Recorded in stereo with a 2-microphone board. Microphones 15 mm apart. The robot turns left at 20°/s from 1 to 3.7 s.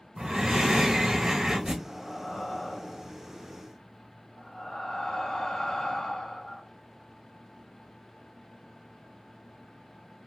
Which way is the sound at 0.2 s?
40° right (ahead or behind).